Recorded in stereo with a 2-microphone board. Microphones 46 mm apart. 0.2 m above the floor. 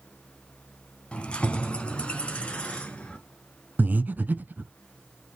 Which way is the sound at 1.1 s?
25° left (ahead or behind).